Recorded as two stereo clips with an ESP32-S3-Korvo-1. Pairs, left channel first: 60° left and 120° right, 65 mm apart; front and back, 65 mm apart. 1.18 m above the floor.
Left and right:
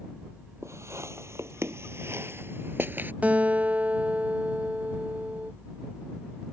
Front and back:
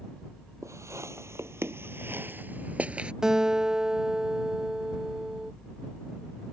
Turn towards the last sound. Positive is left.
turn(degrees=-115)